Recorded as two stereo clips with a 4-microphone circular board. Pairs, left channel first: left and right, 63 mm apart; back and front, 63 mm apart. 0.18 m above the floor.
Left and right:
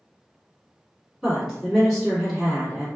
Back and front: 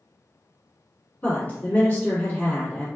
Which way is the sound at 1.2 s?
165° right.